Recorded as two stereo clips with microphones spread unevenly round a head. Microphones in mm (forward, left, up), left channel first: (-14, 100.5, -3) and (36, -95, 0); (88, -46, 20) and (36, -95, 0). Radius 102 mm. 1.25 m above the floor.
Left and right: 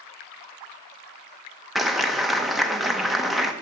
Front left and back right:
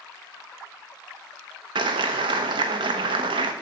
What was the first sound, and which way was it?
A clap, 165° right.